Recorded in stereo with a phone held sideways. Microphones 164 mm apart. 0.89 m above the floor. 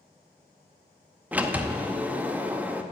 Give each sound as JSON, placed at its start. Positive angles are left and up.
{"t": 1.3, "sound": "a sliding door", "side_deg": -10, "distance_m": 0.5}